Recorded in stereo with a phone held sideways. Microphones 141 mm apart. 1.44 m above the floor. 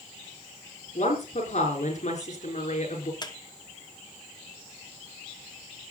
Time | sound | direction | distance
0.9 | a woman speaking | 60° left (ahead or behind) | 5 m
3.2 | a squeak | 30° left (ahead or behind) | 1.3 m